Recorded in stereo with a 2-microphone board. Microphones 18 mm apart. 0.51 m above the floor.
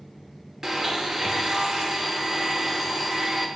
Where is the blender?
25° right (ahead or behind), 0.9 m.